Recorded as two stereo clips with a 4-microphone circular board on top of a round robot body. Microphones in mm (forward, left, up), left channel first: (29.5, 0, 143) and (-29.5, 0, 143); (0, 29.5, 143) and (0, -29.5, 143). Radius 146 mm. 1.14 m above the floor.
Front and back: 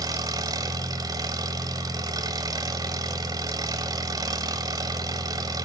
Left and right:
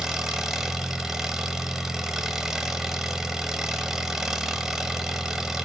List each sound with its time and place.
0.0 s an engine running: 175° right, 0.8 m